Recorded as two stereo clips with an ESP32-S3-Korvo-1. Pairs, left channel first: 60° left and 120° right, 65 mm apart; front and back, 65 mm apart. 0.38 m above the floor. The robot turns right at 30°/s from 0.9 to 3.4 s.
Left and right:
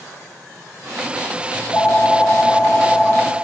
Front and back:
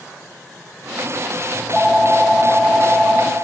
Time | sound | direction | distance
1.5 | a phone ringing | 80° left | 0.6 m